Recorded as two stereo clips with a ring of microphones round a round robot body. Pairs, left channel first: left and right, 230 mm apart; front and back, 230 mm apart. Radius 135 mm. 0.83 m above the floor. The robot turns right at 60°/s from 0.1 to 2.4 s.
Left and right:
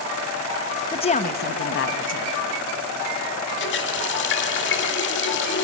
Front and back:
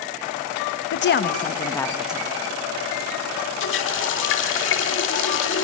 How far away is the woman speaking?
About 0.9 m.